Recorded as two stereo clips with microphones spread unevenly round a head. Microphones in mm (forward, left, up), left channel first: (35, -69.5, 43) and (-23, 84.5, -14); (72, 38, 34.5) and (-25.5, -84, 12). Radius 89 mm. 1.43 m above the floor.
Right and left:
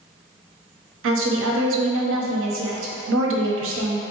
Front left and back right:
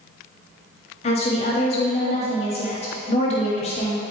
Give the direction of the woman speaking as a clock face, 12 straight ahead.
8 o'clock.